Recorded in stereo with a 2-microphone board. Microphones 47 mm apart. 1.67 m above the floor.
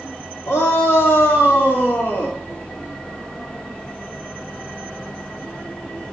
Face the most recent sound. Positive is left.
turn(degrees=55)  # may be behind; listen again after turning